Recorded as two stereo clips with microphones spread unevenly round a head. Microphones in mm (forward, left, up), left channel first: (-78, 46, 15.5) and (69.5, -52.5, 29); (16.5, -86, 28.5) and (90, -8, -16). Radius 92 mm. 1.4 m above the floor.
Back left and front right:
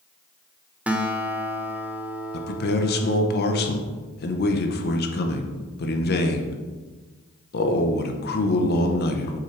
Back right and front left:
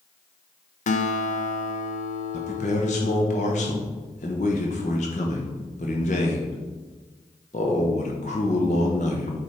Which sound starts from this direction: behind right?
A guitar, at 0.9 s.